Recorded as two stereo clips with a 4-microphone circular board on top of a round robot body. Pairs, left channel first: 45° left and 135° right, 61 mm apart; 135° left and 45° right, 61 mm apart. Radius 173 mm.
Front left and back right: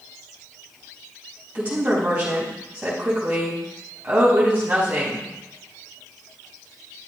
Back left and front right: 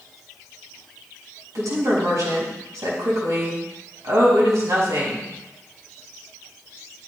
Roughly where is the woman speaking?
Right.